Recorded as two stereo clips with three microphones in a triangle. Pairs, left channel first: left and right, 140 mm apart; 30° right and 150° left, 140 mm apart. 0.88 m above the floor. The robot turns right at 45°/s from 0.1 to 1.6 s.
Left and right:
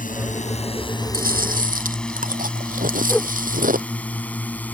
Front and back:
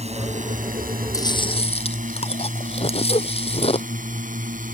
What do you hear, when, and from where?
0.0 s a drone: 110° left; by 4.8 s 170° left
1.1 s chewing: 95° right; by 3.9 s 75° right
3.1 s a whoosh: 10° left